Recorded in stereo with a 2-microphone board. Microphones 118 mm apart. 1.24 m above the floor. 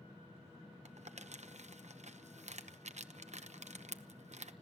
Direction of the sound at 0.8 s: 70° right (ahead or behind).